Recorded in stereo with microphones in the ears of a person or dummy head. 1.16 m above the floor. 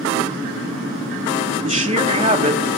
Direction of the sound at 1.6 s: 25° right (ahead or behind).